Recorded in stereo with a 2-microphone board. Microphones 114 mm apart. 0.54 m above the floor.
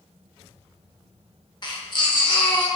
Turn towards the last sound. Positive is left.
turn(degrees=40)  # may be behind; listen again after turning